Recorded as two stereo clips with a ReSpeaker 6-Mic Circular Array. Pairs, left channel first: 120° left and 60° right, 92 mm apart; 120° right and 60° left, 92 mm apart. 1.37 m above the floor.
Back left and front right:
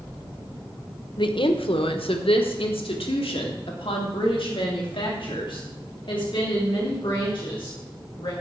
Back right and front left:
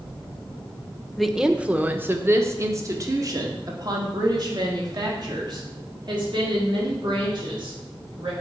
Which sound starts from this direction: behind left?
A woman speaking, at 1.2 s.